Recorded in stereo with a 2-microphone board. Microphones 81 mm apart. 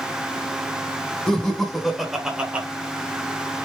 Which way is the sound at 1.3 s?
10° left (ahead or behind).